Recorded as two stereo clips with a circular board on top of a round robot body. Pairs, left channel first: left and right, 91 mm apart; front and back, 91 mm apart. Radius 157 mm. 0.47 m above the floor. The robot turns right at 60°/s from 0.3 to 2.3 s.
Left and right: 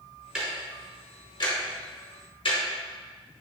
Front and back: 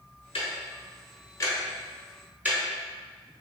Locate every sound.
0.3 s ticking: 10° right, 1.1 m; by 2.6 s 110° left, 1.1 m